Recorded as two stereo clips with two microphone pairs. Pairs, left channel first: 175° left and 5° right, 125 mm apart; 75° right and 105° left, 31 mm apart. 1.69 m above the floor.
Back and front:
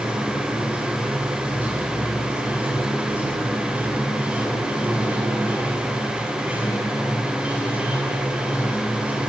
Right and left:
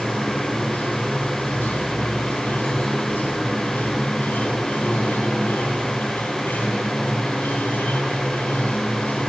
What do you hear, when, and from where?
0.0 s running water: 85° right, 6 m